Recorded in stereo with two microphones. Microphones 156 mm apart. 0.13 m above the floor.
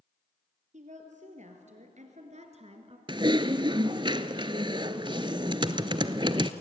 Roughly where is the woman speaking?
Right.